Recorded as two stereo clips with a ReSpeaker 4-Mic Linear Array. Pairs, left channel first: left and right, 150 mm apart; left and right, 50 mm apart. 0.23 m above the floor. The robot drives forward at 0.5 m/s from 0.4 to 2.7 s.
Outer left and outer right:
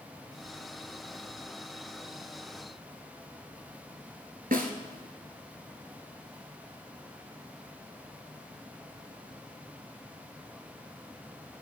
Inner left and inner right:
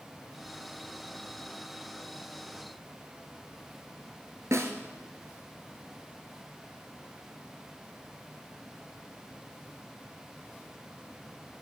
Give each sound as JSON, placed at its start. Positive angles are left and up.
{"t": 4.5, "sound": "a snare drum", "side_deg": -80, "distance_m": 1.0}